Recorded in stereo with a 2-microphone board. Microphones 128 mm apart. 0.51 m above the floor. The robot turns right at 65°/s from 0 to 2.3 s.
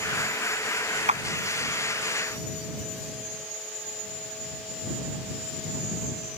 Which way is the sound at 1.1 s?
70° right (ahead or behind).